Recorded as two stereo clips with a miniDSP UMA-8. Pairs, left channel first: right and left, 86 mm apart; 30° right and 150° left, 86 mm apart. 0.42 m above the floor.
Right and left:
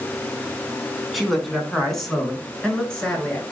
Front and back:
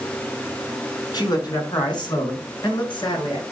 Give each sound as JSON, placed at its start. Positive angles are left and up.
{"t": 1.1, "sound": "a man speaking", "azimuth_deg": 0, "distance_m": 4.5}